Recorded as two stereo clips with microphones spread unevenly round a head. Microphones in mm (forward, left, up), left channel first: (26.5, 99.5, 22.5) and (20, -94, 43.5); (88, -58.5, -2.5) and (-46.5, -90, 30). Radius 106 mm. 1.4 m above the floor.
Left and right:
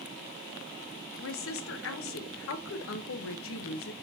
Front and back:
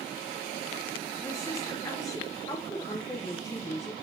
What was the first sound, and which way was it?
A woman speaking, 85° left.